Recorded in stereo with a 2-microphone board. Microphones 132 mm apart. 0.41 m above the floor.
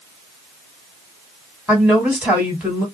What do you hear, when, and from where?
1.7 s a woman speaking: 10° right (ahead or behind), 2.0 m